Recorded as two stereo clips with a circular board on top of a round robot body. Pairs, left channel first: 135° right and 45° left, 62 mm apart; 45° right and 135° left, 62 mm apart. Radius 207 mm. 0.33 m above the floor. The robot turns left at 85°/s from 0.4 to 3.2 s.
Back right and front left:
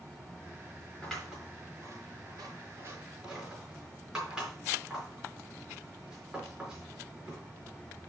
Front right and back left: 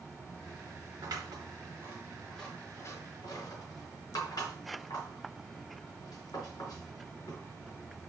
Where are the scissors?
150° left, 4.5 m; by 7.4 s 35° right, 4.5 m.